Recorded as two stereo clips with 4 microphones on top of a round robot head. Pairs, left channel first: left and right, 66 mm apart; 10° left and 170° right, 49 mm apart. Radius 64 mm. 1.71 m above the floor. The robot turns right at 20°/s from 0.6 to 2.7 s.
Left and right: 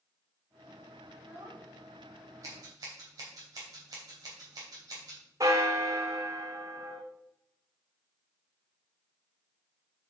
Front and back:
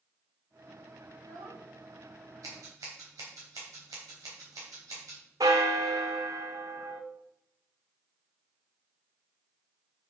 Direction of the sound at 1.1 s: 160° right.